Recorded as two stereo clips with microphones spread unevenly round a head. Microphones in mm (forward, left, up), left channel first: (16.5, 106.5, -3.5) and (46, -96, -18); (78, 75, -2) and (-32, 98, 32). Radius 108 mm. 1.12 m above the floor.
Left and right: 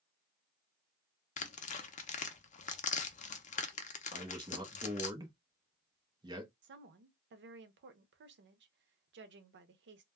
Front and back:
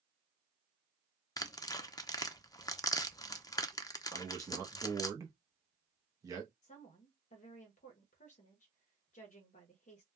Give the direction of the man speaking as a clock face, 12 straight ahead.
4 o'clock.